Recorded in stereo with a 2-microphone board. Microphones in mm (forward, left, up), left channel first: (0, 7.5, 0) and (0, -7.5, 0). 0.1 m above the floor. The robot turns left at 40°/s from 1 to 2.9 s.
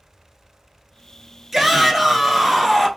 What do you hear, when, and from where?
1.5 s a shout: 15° right (ahead or behind), 1.1 m; by 2.9 s 10° left (ahead or behind), 1.1 m